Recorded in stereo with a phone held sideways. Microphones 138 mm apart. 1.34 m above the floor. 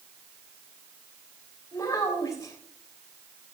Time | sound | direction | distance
1.7 | a child speaking | 25° left (ahead or behind) | 3.5 m